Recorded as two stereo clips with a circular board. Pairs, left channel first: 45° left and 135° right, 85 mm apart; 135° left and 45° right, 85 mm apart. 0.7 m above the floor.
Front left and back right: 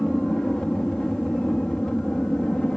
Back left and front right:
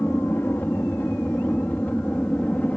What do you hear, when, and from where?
0.0 s an aircraft: 115° left; by 2.8 s 105° left